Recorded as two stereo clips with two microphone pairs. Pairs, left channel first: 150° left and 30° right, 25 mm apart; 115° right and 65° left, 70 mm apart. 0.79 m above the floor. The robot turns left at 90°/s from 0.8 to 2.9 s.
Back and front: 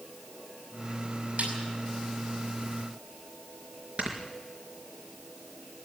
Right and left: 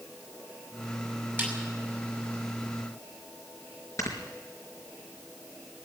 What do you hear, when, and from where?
1.4 s a snare drum: 10° left, 6 m; by 1.5 s 5° right, 6 m
4.0 s snoring: 70° right, 4 m